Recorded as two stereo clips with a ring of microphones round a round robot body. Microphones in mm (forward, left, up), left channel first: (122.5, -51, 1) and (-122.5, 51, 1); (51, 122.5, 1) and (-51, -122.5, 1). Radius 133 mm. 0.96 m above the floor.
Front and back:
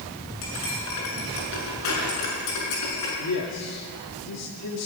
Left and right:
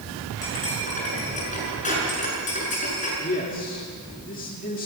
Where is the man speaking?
10° left, 2 m.